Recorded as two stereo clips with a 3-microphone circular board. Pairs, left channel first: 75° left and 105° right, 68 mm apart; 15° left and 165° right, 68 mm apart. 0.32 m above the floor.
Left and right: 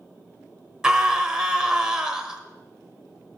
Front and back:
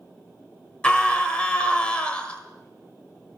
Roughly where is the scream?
Ahead right.